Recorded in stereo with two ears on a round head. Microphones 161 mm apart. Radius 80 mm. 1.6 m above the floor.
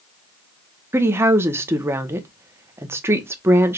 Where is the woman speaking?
15° right (ahead or behind), 0.8 m.